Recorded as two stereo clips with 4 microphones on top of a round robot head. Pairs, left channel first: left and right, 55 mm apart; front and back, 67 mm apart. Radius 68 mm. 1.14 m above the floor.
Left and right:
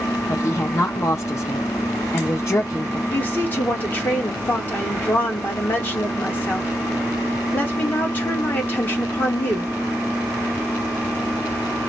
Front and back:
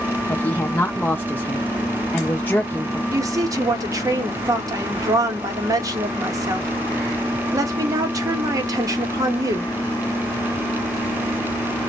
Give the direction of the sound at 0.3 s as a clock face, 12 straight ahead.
10 o'clock.